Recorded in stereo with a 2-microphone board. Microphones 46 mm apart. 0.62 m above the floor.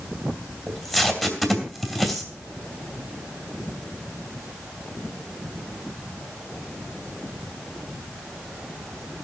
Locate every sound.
0.7 s tape being pulled: centre (ahead or behind), 3 m